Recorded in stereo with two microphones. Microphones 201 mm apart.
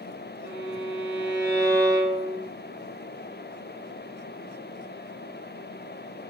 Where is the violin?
55° right (ahead or behind), 5 m.